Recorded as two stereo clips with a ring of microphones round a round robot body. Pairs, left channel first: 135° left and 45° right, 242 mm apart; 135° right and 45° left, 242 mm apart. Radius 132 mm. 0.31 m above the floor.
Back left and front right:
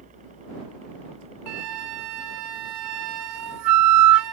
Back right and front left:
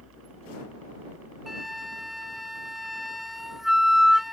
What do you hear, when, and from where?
0.0 s a helicopter: 15° left; by 4.3 s 25° left
1.5 s a flute: 45° right